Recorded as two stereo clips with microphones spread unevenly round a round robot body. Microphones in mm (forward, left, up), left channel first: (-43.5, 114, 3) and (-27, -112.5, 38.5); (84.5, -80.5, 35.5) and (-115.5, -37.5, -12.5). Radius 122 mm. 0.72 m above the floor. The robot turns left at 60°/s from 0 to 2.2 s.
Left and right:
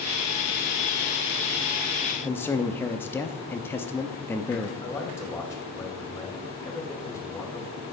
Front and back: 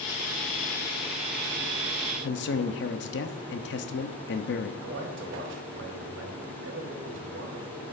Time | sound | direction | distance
2.2 | a man speaking | 25° left | 0.6 m
4.8 | a man speaking | 170° left | 2.5 m